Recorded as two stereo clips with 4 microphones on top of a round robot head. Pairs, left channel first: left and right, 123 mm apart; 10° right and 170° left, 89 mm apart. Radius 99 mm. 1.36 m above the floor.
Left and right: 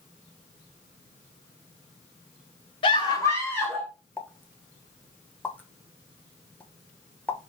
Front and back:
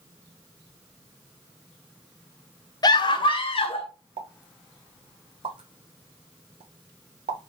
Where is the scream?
35° left, 0.9 m; by 3.9 s 5° left, 1.3 m.